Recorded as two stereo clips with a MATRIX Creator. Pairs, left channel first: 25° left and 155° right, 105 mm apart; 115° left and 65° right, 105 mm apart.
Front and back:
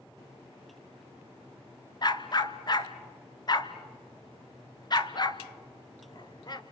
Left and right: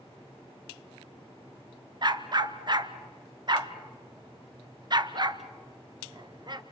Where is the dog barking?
25° right, 0.9 m.